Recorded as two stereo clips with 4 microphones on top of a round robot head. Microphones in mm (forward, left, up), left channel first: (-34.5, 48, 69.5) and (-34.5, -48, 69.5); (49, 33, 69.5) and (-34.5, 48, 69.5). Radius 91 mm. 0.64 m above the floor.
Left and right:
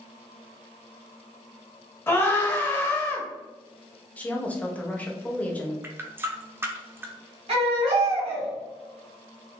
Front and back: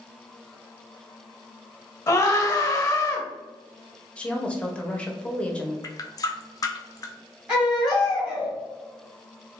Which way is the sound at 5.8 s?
30° right.